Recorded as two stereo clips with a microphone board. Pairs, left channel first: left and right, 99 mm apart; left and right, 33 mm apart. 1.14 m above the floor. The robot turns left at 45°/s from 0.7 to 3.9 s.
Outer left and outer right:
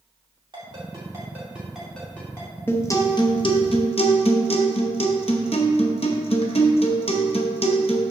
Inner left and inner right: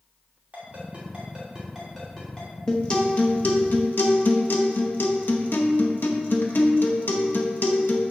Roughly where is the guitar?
Behind.